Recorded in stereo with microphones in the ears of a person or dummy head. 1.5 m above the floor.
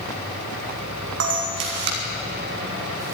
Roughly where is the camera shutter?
Right.